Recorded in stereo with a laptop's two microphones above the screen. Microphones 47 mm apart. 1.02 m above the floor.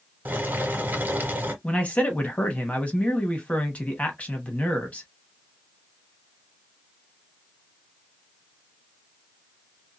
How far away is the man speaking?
About 1.2 m.